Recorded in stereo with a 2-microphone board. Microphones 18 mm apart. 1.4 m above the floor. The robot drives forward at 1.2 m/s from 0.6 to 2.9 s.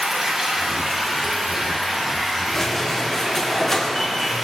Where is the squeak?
15° left (ahead or behind), 0.9 m; by 4.3 s 10° left (ahead or behind), 1.2 m.